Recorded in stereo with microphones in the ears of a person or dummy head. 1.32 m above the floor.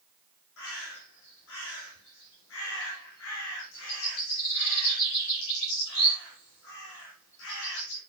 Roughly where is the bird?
Left.